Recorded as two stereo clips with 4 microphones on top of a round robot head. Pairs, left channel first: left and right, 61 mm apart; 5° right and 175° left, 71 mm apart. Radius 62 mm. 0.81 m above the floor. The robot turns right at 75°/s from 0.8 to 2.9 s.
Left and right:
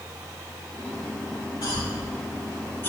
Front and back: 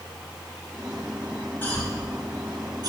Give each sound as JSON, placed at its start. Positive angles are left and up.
{"t": 1.6, "sound": "a cough", "azimuth_deg": 55, "distance_m": 5.5}